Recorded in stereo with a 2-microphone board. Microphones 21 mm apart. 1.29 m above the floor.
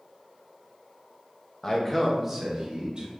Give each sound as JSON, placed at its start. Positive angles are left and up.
{"t": 1.6, "sound": "a man speaking", "side_deg": 25, "distance_m": 1.1}